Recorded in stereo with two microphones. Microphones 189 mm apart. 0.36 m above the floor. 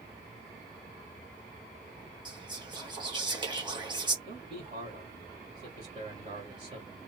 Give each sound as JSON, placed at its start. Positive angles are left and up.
{"t": 2.2, "sound": "whispering", "side_deg": -25, "distance_m": 1.0}
{"t": 4.2, "sound": "a man speaking", "side_deg": -50, "distance_m": 1.7}